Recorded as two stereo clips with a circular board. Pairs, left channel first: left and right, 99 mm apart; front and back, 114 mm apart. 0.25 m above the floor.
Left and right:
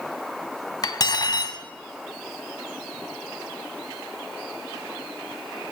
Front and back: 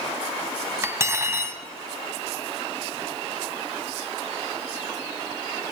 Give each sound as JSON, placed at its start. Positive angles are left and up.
{"t": 0.8, "sound": "cutlery clinking", "azimuth_deg": 120, "distance_m": 1.1}